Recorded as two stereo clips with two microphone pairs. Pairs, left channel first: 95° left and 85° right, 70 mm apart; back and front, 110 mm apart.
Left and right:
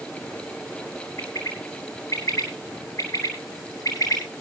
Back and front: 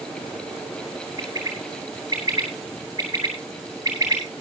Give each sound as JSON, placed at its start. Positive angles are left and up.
{"t": 1.2, "sound": "a bird", "azimuth_deg": 60, "distance_m": 7.5}